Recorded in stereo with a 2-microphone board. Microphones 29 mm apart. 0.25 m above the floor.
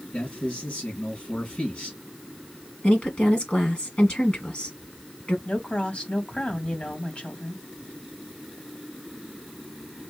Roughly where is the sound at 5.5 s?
Left.